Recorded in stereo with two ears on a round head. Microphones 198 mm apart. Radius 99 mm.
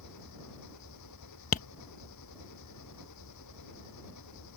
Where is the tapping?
35° left (ahead or behind).